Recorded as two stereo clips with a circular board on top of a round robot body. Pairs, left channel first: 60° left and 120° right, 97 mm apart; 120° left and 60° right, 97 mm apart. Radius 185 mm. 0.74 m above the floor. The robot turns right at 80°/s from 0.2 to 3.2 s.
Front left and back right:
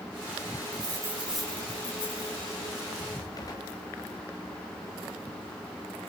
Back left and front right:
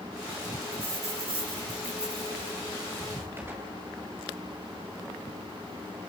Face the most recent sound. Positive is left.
turn(degrees=5)